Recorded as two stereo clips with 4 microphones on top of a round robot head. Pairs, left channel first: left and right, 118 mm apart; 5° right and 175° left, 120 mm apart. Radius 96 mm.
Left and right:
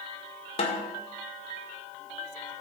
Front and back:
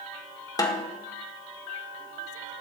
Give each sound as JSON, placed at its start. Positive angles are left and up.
{"t": 0.6, "sound": "a snare drum", "azimuth_deg": 55, "distance_m": 1.7}